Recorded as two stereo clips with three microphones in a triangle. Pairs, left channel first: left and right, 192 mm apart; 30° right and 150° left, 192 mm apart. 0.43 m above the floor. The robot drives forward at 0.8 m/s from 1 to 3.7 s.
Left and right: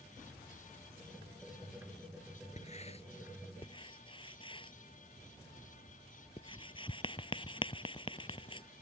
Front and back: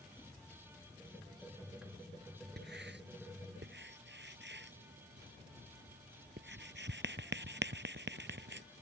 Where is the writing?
140° left; by 8.7 s 150° left.